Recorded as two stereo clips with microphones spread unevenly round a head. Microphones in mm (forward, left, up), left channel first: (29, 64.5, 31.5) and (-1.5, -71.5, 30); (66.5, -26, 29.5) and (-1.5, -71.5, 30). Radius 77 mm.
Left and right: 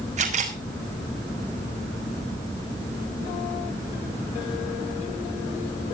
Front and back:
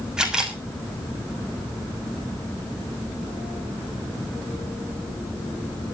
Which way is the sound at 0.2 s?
65° right.